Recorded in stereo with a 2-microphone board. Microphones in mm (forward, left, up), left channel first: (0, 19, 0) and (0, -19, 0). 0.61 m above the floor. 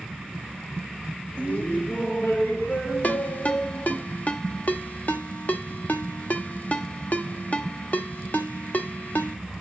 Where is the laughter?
35° left (ahead or behind), 1.4 m; by 4.0 s 60° left (ahead or behind), 3.5 m.